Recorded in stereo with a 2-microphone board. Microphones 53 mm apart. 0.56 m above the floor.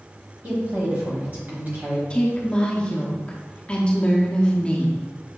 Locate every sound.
0.4 s a woman speaking: 35° right (ahead or behind), 1.1 m
2.1 s a woman speaking: 20° left (ahead or behind), 0.6 m